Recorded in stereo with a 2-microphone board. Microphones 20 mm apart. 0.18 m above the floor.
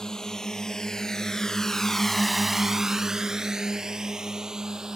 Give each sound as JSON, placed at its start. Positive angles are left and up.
{"t": 0.0, "sound": "a drone", "side_deg": 40}